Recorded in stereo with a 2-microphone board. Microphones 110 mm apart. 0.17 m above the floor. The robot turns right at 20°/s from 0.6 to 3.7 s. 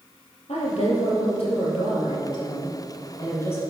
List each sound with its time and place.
0.5 s a woman speaking: 100° left, 4 m; by 3.6 s 160° left, 4 m